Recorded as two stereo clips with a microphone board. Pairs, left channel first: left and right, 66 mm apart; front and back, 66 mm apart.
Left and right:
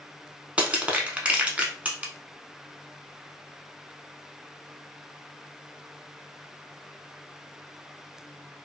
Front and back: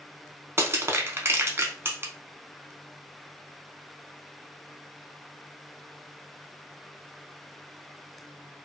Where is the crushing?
150° right, 0.6 m.